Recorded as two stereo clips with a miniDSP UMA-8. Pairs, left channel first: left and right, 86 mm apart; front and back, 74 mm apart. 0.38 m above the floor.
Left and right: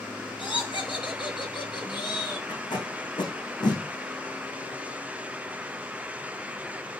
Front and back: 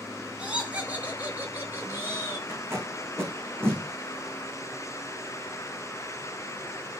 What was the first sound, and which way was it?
Laughter, 105° left.